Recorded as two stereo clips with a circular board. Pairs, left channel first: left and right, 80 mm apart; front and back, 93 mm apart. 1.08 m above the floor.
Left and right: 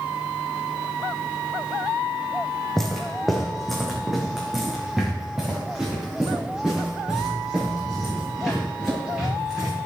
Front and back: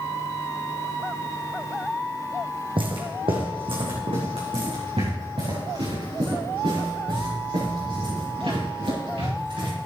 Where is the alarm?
No alarm in this recording.